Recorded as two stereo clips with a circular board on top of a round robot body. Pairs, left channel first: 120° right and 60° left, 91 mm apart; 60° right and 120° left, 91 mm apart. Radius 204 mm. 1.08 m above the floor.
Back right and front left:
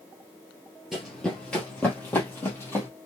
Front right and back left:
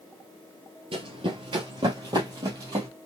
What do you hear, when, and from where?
0.9 s running footsteps: 145° left, 1.4 m; by 2.9 s 175° left, 2.5 m